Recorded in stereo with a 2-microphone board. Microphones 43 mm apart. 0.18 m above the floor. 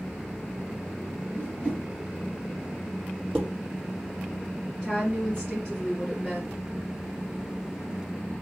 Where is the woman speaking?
25° left (ahead or behind), 2.5 m.